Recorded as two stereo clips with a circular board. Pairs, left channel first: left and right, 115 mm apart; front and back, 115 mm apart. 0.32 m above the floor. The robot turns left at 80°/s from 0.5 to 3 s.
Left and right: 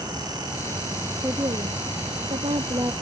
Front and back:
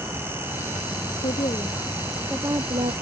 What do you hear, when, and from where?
1.2 s a woman speaking: 20° right; by 2.9 s 155° right